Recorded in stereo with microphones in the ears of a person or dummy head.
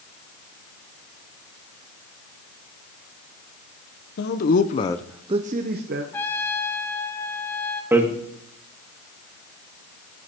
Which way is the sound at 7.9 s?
20° right (ahead or behind).